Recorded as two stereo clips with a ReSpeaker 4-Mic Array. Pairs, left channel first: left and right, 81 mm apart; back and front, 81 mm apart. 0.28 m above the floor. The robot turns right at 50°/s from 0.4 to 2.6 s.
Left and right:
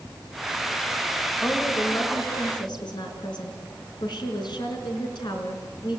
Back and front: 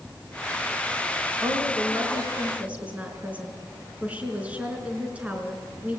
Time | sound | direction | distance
1.4 | a woman speaking | 10° left | 3.5 m